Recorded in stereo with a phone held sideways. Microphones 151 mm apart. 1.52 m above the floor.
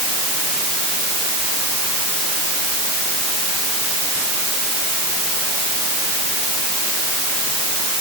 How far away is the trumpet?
No trumpet in this recording.